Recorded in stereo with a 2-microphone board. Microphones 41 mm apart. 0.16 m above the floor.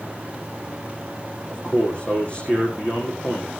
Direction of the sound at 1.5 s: 25° left (ahead or behind).